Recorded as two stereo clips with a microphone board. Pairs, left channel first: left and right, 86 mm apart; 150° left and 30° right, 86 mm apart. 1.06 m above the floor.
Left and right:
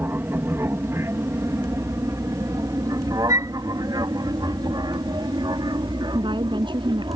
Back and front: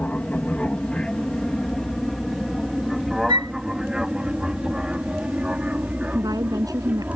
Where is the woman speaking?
70° right.